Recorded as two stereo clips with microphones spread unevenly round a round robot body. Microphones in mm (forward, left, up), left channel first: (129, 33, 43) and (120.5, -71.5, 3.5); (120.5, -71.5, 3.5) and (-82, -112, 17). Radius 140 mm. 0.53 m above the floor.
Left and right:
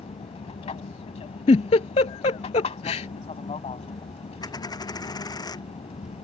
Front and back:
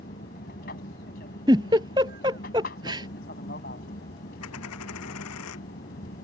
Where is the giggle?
115° left.